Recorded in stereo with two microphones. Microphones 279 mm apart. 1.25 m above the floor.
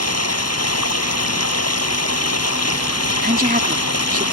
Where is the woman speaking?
30° right (ahead or behind).